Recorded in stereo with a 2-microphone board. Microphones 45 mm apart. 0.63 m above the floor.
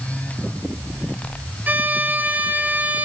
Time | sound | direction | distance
1.7 | a violin | 45° right (ahead or behind) | 1.6 m